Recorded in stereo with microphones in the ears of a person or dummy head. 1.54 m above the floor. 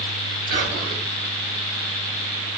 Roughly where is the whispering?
Right.